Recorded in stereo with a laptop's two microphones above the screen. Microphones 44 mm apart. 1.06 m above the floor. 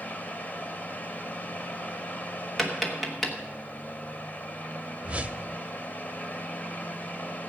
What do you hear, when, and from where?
0.0 s a fan: 40° left (ahead or behind), 1.0 m
2.6 s tapping: 5° left (ahead or behind), 1.1 m
5.0 s a whoosh: 30° right (ahead or behind), 0.7 m